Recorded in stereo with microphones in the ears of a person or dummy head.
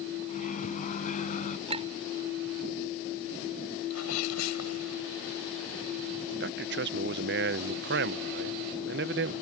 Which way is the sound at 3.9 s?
85° left.